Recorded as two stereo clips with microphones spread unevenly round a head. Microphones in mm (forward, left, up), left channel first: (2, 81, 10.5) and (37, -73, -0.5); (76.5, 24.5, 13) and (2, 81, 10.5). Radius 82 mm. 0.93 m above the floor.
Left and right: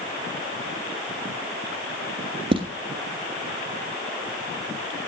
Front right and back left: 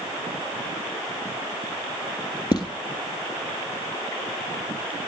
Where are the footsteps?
30° right, 1.3 m.